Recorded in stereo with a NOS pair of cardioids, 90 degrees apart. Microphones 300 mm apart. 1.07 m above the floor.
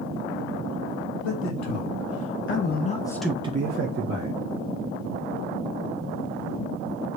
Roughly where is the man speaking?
Left.